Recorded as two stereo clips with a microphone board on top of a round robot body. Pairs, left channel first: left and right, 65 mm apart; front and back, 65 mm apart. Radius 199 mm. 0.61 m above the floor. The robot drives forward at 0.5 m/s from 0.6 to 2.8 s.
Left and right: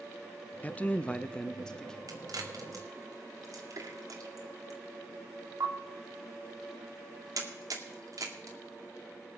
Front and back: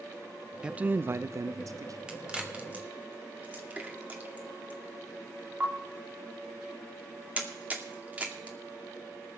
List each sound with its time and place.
0.6 s a man speaking: 115° left, 0.6 m; by 2.0 s 170° left, 0.9 m
2.1 s a crack: 100° right, 2 m; by 8.6 s 115° right, 2 m